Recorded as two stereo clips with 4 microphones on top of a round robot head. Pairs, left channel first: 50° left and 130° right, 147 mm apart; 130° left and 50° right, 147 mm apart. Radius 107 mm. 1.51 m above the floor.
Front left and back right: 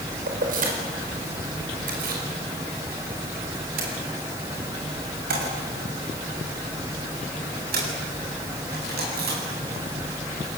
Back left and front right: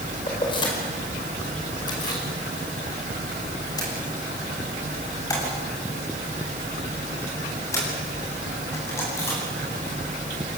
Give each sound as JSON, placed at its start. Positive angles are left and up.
{"t": 0.3, "sound": "keys jangling", "azimuth_deg": -170, "distance_m": 4.5}